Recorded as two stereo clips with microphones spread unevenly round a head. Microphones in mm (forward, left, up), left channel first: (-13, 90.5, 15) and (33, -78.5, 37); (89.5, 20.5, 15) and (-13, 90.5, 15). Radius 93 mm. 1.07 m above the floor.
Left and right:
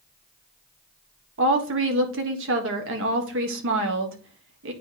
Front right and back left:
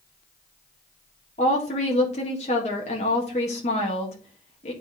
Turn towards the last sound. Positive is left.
turn(degrees=-80)